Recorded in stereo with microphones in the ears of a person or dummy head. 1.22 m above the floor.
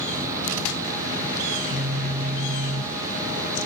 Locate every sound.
1.5 s a phone buzzing: 60° right (ahead or behind), 3 m